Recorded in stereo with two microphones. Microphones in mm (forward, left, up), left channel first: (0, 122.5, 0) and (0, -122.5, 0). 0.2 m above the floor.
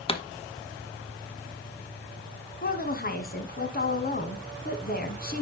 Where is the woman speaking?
40° left (ahead or behind), 1.4 m.